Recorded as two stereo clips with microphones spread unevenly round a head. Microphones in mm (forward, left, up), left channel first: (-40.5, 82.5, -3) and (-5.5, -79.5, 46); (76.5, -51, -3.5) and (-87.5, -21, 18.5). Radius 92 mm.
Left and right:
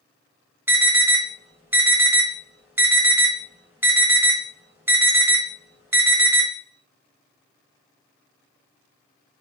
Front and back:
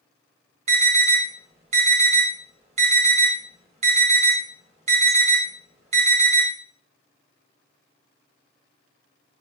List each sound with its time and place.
0.7 s an alarm: 170° right, 1.3 m